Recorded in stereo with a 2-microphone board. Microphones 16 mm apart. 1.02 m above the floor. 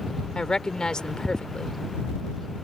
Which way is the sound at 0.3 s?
70° left (ahead or behind).